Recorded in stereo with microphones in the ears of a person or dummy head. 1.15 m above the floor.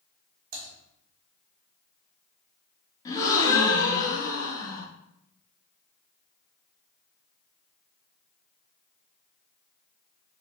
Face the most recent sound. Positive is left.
turn(degrees=15)  # may be behind; listen again after turning